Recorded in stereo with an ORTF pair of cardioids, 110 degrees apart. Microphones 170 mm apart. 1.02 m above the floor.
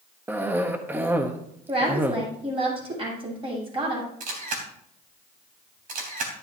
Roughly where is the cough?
Ahead.